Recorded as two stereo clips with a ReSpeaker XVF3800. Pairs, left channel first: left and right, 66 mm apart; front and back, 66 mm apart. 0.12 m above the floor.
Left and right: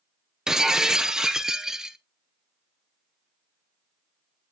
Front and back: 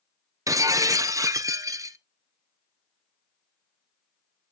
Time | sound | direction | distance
0.5 | breaking glass | 170° right | 0.5 m